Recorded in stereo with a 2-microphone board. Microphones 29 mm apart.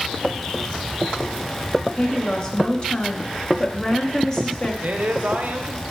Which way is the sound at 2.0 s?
25° left (ahead or behind).